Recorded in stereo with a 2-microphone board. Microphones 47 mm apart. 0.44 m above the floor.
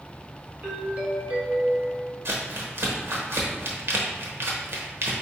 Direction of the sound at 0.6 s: 30° right (ahead or behind).